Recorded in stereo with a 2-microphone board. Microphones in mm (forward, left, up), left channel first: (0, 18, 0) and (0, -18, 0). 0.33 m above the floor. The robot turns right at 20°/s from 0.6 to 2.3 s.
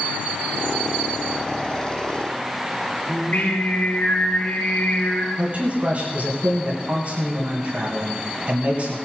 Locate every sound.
3.1 s singing: 45° left (ahead or behind), 3.5 m
5.4 s a man speaking: 45° right (ahead or behind), 2.5 m